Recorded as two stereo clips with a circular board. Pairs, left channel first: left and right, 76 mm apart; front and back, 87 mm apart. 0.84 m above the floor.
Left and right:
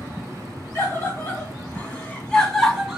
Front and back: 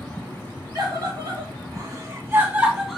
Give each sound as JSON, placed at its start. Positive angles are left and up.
{"t": 0.8, "sound": "a scream", "azimuth_deg": 145, "distance_m": 1.3}